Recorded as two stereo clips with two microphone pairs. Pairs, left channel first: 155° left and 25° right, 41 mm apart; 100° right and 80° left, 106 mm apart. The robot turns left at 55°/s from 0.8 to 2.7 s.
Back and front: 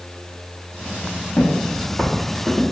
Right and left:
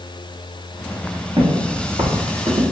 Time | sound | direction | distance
1.4 | footsteps | 125° left | 1.8 m